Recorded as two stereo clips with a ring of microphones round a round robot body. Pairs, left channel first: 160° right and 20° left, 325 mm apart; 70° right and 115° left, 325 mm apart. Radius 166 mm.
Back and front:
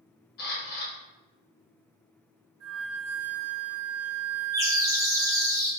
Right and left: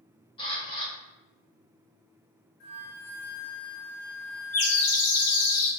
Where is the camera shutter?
130° right, 1.1 m.